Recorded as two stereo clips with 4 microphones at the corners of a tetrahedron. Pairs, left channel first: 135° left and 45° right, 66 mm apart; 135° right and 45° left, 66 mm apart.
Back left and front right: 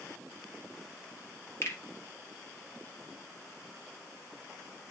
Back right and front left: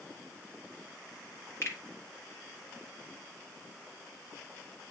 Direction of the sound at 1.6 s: 175° left.